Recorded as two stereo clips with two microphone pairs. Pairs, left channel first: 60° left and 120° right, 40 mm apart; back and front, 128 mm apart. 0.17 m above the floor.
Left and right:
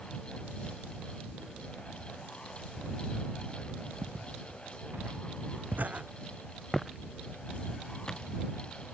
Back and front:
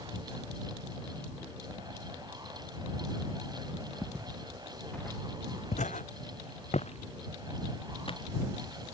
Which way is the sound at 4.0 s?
80° right.